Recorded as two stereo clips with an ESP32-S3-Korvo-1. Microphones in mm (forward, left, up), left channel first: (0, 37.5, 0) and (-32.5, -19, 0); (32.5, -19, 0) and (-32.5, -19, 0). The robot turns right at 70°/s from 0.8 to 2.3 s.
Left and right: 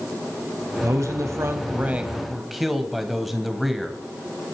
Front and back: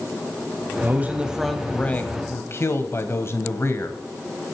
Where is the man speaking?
135° right, 1.6 m; by 4.0 s 35° right, 1.6 m.